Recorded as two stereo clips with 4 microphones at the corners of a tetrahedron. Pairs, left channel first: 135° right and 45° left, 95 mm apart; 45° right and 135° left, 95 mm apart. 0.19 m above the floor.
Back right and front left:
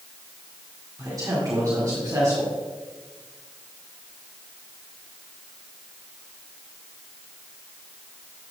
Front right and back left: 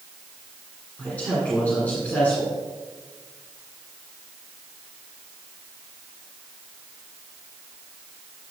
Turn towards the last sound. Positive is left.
turn(degrees=20)